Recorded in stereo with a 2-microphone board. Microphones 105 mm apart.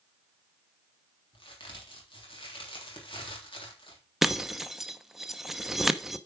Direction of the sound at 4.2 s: 5° right (ahead or behind).